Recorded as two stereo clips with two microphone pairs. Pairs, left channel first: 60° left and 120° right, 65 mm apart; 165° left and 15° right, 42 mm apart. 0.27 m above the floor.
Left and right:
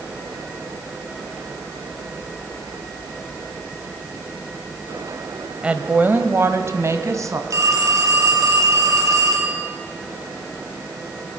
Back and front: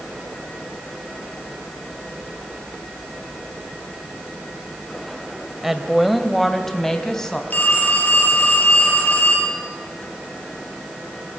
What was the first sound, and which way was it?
A woman speaking, 80° right.